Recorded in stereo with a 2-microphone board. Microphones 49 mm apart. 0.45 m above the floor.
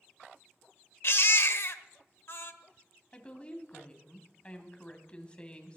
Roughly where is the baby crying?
Left.